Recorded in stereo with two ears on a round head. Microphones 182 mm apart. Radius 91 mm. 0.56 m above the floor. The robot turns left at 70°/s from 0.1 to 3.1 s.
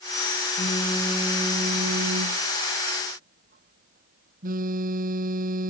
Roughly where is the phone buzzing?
Ahead left.